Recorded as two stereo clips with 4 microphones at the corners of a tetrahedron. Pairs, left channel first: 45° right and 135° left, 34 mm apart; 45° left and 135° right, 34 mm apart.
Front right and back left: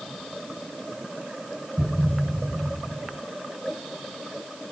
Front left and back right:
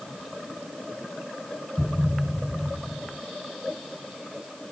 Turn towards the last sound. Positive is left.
turn(degrees=30)